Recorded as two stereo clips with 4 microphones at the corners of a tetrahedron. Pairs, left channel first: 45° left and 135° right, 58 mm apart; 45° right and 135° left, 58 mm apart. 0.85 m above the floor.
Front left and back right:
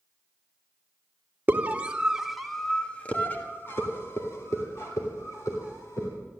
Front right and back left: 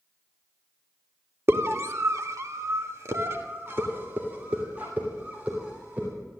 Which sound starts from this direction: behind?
A scream, at 1.5 s.